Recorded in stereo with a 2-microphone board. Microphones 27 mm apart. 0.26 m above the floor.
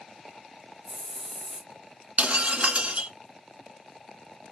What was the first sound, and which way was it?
A hiss, 25° left (ahead or behind).